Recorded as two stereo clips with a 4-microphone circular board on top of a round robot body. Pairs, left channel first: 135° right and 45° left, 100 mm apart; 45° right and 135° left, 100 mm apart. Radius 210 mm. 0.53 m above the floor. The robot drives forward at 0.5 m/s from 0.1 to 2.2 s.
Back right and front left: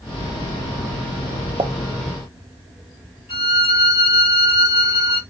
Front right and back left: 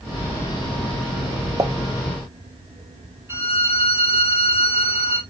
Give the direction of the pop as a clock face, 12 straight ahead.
9 o'clock.